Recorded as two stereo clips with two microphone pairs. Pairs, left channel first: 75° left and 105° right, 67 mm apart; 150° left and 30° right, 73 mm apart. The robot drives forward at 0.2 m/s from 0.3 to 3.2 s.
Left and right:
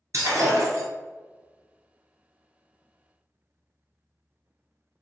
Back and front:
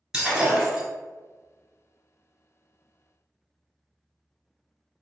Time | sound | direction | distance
0.1 | breaking glass | 105° right | 1.5 m